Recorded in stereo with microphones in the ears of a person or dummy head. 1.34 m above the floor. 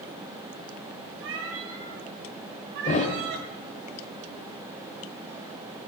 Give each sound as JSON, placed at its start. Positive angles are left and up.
{"t": 1.2, "sound": "a cat meowing", "side_deg": -70, "distance_m": 2.5}
{"t": 2.9, "sound": "a thud", "side_deg": 35, "distance_m": 2.5}